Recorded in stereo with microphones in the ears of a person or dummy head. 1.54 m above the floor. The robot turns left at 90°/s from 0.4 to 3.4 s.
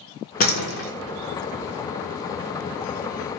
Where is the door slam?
135° left, 1.0 m; by 0.9 s 90° left, 1.0 m.